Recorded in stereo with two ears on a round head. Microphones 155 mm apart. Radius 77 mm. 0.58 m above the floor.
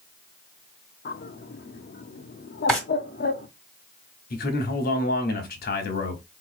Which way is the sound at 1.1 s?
55° left (ahead or behind).